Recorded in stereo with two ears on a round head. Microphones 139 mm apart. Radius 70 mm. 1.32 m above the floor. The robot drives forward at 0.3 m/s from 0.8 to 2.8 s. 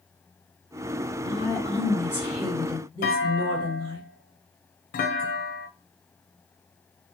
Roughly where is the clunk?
Left.